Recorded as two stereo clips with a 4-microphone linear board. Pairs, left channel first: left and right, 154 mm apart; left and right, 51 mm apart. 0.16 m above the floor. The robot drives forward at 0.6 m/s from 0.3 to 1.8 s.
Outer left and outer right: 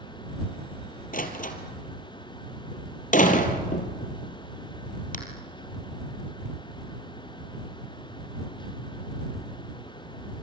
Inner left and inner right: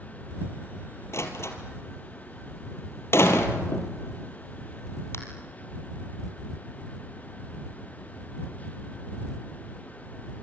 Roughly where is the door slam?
Left.